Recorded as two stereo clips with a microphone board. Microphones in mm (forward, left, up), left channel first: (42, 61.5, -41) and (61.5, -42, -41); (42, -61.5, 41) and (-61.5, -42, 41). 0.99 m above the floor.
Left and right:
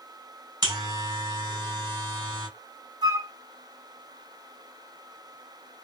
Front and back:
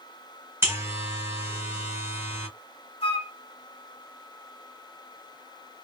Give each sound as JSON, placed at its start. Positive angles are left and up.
{"t": 0.6, "sound": "a buzzer", "azimuth_deg": -125, "distance_m": 2.5}
{"t": 3.0, "sound": "a flute", "azimuth_deg": -35, "distance_m": 1.8}